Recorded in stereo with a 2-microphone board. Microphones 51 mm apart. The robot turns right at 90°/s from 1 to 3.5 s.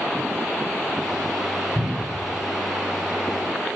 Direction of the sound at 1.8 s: 35° right (ahead or behind).